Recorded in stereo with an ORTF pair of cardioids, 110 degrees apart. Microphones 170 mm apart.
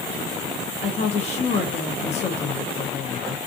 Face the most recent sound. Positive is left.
turn(degrees=40)